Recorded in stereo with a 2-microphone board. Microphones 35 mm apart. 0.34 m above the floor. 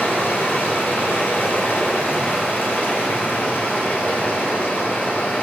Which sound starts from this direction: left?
Running water, at 0.0 s.